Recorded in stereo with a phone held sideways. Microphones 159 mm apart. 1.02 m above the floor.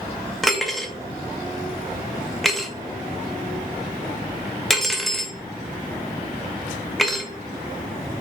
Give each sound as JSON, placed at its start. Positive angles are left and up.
{"t": 0.4, "sound": "cutlery clinking", "side_deg": 0, "distance_m": 0.6}